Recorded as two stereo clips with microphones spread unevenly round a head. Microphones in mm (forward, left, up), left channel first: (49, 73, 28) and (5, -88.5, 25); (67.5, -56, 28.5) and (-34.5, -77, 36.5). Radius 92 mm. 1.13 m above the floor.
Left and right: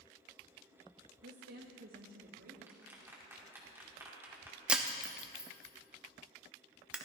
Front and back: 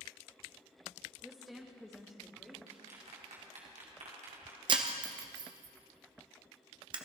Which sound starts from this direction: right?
A woman speaking, at 1.2 s.